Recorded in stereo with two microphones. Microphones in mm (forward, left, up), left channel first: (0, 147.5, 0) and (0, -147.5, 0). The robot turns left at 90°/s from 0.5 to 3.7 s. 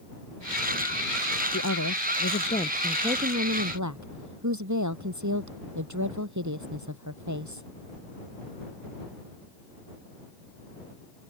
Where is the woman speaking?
120° left; by 7.6 s 75° right.